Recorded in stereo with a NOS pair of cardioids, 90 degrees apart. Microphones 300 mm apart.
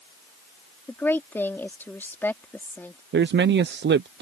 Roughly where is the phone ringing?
No phone ringing in this recording.